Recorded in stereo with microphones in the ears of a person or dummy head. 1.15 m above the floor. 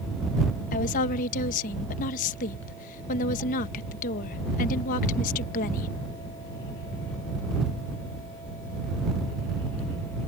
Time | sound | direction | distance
0.7 | a woman speaking | 45° left (ahead or behind) | ?